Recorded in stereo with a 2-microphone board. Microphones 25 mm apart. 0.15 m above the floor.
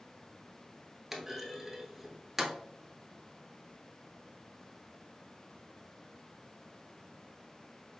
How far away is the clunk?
About 0.9 m.